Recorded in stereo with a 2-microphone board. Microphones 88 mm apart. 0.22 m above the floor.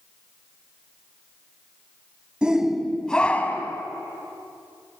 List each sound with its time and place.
2.4 s a shout: 10° right (ahead or behind), 1.3 m; by 3.8 s 25° left (ahead or behind), 1.4 m